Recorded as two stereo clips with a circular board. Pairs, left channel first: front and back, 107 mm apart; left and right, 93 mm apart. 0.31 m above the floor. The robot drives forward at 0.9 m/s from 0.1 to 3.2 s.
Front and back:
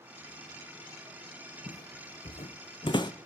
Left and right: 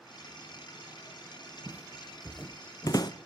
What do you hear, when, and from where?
1.7 s footsteps: 15° right, 1.2 m; by 3.1 s 50° left, 1.1 m